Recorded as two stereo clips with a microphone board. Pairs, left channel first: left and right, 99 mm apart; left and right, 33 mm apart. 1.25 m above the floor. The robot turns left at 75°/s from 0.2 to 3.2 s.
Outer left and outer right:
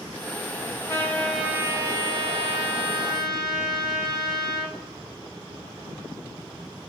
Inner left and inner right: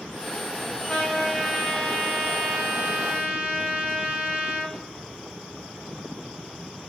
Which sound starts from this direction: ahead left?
A trumpet, at 0.9 s.